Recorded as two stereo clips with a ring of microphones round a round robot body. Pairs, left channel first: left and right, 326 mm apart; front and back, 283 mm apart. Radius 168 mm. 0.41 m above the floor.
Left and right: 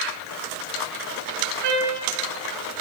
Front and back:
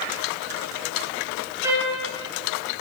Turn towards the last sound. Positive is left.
turn(degrees=-100)